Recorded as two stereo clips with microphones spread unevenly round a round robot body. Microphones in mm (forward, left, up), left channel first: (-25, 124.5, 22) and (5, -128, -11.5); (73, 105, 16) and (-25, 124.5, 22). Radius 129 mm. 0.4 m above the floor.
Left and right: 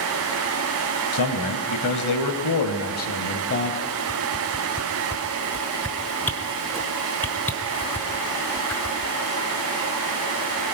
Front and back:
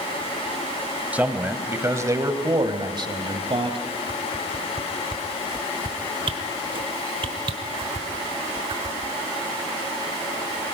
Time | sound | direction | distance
1.1 | a man speaking | 95° left | 2 m
4.1 | a whoosh | 175° right | 1.1 m